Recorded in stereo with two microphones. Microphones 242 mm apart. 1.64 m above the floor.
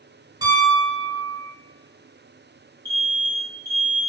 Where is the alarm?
35° left (ahead or behind), 1.1 m.